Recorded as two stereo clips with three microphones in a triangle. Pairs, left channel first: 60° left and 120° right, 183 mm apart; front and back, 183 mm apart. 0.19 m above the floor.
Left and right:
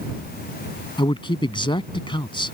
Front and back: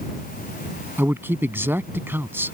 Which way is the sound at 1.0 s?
105° left.